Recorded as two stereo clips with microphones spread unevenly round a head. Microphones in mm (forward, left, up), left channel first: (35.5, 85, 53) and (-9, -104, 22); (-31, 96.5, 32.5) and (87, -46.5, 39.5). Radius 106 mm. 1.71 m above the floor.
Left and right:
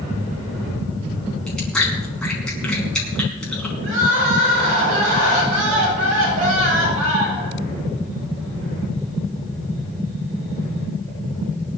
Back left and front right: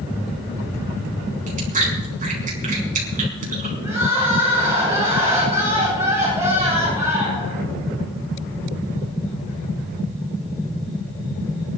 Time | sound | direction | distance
1.5 | chewing | 5° right | 4.5 m
3.8 | crying | 125° right | 7 m